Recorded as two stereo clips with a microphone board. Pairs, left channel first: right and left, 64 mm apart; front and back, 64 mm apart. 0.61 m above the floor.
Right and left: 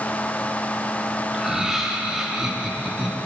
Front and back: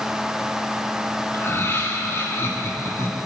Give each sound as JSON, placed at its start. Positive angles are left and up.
{"t": 1.3, "sound": "laughter", "azimuth_deg": 10, "distance_m": 1.4}